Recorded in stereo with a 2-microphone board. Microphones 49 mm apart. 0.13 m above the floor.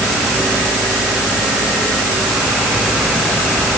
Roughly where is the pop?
No pop in this recording.